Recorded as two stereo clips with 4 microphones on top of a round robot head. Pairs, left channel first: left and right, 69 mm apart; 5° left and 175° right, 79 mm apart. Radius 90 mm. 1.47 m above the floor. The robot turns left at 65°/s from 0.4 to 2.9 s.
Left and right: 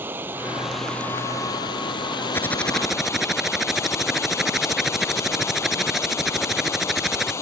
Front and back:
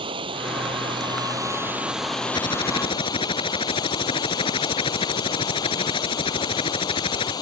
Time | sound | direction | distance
0.0 | running water | 155° right | ?
2.3 | typing on a keyboard | 35° left | ?